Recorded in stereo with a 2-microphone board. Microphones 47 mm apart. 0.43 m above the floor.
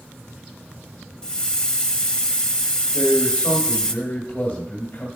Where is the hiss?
20° left (ahead or behind), 0.7 m.